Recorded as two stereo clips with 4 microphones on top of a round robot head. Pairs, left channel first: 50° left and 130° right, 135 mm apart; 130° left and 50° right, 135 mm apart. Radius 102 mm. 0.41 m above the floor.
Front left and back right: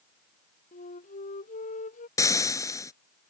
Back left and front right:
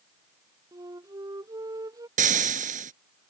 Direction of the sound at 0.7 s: 20° left.